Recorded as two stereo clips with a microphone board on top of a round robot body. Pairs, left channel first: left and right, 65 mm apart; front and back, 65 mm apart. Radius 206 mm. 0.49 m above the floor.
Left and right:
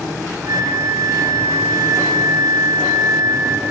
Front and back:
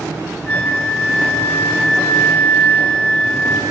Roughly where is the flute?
Right.